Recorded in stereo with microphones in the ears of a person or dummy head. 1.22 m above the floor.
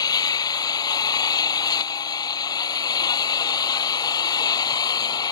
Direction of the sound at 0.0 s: 25° left (ahead or behind).